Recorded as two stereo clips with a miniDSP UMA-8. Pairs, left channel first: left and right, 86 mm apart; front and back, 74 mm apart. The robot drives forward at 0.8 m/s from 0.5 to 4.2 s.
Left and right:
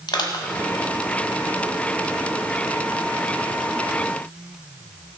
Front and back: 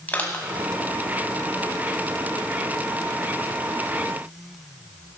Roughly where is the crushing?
Ahead left.